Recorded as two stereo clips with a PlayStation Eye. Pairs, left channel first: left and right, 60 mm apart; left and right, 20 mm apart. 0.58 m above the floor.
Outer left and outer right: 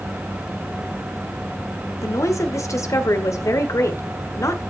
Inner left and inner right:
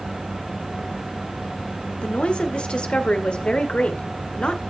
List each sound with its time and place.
2.0 s a woman speaking: 65° left (ahead or behind), 1.7 m